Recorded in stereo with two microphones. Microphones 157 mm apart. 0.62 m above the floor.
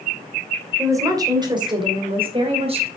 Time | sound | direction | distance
0.8 | a woman speaking | 20° right (ahead or behind) | 2.5 m